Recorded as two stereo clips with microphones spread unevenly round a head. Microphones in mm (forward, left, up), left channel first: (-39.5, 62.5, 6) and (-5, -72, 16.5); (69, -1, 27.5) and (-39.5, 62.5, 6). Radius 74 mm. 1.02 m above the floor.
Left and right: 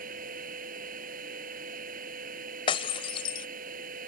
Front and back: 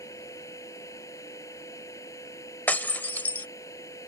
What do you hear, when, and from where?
0.0 s a machine running: 100° right
2.7 s breaking glass: 45° left